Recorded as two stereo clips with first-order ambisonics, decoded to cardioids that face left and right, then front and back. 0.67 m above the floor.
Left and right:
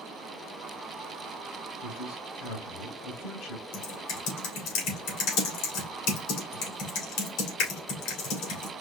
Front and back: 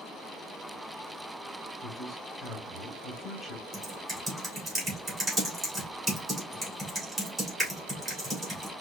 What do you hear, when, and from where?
1.8 s a man speaking: 95° left, 3 m
3.7 s typing on a keyboard: 100° left, 2.5 m